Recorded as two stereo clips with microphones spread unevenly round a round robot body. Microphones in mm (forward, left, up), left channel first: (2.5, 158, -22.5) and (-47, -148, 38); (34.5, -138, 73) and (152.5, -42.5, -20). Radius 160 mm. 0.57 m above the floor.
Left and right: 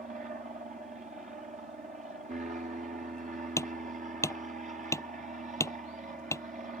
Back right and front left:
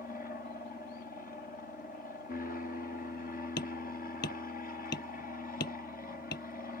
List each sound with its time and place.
0.0 s an aircraft: 150° right
3.6 s hammering: 165° left